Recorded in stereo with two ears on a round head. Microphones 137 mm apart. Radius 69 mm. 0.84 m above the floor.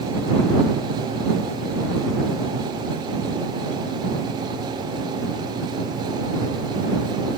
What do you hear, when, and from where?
Only background noise.